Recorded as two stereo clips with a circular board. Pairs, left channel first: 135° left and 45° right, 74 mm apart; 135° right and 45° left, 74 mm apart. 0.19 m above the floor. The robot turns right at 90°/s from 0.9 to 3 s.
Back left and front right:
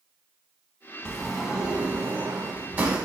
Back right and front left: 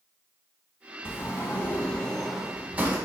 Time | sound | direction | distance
1.1 | a sliding door | 160° right | 0.6 m